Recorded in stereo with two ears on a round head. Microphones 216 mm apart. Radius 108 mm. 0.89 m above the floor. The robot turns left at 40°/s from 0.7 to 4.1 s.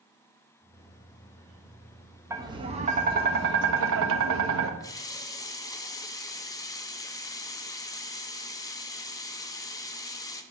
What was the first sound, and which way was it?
Tapping, 15° right.